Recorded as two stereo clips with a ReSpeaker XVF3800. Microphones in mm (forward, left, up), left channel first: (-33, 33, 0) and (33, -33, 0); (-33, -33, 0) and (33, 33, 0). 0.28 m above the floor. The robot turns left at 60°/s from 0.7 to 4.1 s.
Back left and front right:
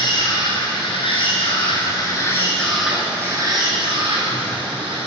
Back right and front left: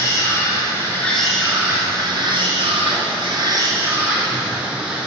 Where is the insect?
170° left, 2 m; by 5.1 s 35° right, 2 m.